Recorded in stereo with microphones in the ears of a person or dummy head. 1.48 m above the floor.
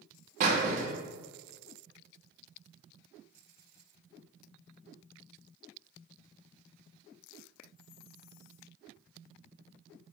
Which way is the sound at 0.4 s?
40° right (ahead or behind).